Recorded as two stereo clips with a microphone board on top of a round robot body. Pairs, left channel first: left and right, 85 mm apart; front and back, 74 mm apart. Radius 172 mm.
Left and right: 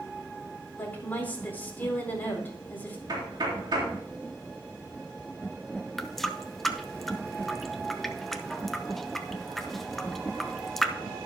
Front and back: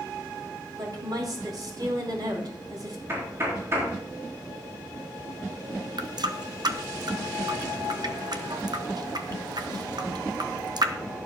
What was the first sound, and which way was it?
A woman speaking, 160° left.